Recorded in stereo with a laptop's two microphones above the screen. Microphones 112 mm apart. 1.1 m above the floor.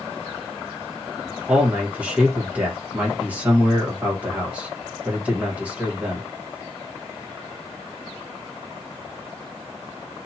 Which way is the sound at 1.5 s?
10° right (ahead or behind).